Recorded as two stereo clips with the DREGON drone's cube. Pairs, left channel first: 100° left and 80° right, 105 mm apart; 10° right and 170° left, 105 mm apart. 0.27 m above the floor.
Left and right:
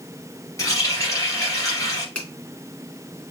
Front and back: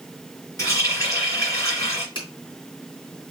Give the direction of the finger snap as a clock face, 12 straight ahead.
11 o'clock.